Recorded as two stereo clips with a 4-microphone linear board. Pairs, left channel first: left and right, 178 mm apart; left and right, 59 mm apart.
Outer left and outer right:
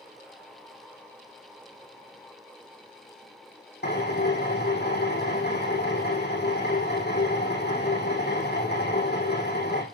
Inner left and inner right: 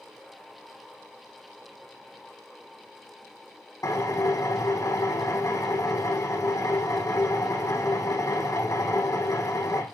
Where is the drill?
70° left (ahead or behind), 6.5 m.